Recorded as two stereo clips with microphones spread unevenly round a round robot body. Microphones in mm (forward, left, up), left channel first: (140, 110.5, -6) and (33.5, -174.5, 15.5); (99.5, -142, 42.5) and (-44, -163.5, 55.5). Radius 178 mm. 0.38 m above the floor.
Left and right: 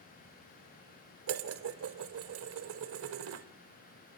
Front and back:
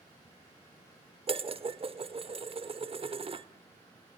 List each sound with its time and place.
1.3 s dishes clattering: 135° right, 1.0 m